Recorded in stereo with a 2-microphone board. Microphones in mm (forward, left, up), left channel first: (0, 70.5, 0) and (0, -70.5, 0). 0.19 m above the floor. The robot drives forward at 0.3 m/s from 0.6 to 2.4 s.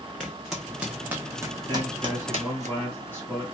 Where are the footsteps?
Centre (ahead or behind), 0.8 m; by 2.7 s 60° right (ahead or behind), 0.5 m.